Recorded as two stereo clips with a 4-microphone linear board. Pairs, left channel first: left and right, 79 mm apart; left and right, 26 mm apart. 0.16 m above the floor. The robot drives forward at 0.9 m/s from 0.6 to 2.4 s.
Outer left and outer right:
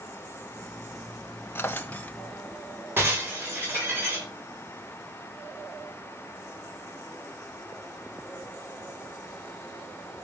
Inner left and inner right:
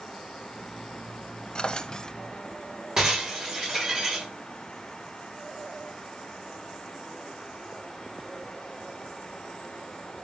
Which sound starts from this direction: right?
Breaking glass, at 3.0 s.